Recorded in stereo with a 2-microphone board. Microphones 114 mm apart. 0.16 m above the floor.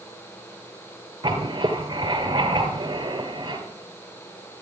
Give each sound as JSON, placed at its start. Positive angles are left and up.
{"t": 1.2, "sound": "writing", "side_deg": -40, "distance_m": 2.5}